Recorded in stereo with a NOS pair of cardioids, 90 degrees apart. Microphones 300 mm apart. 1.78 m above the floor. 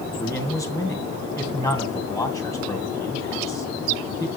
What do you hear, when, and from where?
0.2 s a man speaking: 10° left, 2 m